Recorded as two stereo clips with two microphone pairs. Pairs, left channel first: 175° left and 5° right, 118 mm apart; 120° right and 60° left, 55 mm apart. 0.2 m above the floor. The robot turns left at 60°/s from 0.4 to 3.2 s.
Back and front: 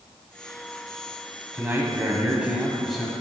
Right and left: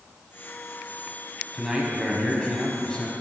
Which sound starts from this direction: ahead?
A man speaking, at 1.5 s.